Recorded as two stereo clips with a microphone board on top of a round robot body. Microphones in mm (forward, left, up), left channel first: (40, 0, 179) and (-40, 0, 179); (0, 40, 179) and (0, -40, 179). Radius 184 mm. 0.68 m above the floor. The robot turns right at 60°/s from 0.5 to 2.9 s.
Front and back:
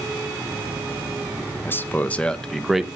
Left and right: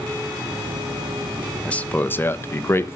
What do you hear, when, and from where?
1.6 s a man speaking: 25° left, 0.9 m; by 3.0 s 100° left, 0.9 m